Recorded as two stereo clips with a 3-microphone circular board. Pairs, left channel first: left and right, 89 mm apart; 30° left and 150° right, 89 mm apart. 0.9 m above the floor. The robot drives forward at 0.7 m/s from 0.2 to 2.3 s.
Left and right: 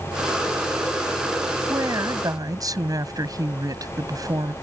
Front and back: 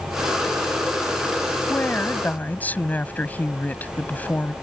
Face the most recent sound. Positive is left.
turn(degrees=-45)